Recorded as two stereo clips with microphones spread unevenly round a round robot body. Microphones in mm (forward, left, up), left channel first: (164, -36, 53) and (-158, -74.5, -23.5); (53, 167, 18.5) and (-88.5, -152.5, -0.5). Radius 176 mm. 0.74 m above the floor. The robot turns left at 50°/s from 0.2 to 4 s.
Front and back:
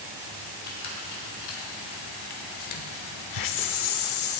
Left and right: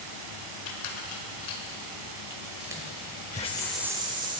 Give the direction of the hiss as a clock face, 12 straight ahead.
12 o'clock.